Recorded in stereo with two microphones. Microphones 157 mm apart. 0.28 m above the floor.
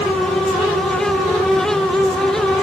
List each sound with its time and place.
Only background noise.